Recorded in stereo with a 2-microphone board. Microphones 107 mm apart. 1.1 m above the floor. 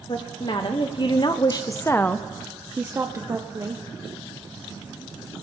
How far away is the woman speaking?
About 1.4 m.